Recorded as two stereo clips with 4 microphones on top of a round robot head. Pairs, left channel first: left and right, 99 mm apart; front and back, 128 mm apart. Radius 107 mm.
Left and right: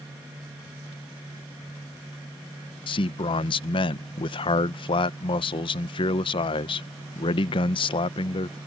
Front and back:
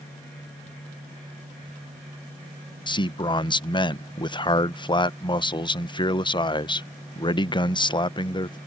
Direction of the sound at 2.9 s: 55° left.